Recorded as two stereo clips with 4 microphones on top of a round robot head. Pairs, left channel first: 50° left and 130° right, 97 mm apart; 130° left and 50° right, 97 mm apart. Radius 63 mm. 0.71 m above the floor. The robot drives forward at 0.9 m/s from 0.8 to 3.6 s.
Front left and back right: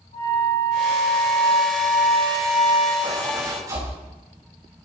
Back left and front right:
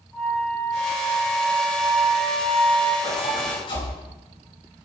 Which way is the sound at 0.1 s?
45° left.